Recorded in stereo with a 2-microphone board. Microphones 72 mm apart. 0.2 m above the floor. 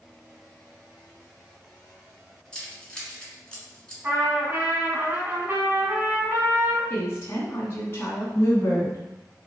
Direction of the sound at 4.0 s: 25° right (ahead or behind).